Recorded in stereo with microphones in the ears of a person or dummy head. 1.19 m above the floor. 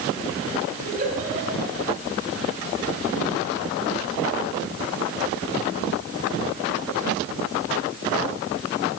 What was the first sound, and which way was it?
A giggle, 45° right (ahead or behind).